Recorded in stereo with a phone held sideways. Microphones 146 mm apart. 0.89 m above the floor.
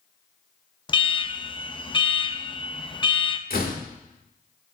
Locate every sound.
0.9 s an alarm: 30° left (ahead or behind), 0.6 m
3.5 s a door slam: 75° left (ahead or behind), 1.5 m